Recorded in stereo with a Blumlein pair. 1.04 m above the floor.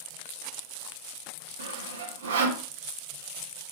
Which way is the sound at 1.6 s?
65° right.